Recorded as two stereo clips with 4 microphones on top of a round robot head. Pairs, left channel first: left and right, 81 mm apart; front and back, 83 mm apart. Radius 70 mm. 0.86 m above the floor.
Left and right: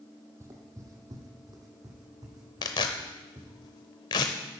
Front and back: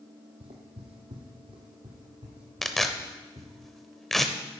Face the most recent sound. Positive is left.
turn(degrees=85)